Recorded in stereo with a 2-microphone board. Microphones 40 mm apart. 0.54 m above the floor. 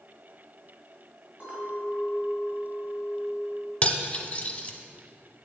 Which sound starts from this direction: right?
A clink, at 1.4 s.